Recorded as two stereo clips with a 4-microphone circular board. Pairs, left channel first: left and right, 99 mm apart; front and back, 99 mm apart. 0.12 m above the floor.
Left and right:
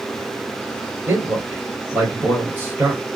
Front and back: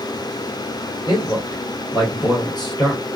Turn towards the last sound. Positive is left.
turn(degrees=-30)